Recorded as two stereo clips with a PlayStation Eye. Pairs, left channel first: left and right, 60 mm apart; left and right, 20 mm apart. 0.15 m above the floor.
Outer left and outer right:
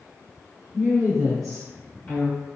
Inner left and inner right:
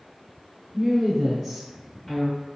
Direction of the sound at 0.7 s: 25° right (ahead or behind).